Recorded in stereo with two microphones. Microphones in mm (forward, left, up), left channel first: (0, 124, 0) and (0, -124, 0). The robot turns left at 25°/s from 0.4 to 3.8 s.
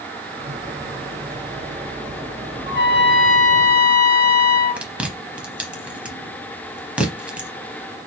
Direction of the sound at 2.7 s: 50° right (ahead or behind).